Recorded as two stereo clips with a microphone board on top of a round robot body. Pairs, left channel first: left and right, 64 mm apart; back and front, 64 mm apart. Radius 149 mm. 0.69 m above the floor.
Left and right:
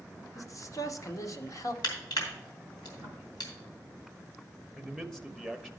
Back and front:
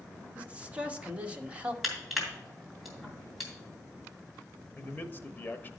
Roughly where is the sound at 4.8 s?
Behind.